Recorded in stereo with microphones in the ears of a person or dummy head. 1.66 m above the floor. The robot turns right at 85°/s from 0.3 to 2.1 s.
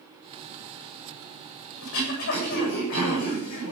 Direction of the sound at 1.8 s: 85° left.